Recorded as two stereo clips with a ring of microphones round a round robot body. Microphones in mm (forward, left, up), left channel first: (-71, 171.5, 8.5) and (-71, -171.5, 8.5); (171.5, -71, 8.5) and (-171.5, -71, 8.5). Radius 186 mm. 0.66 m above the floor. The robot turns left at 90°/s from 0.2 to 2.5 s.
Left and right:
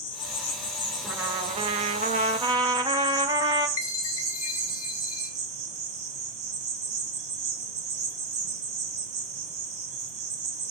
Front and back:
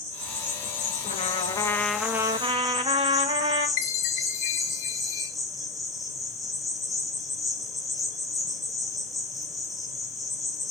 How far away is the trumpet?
About 1.0 m.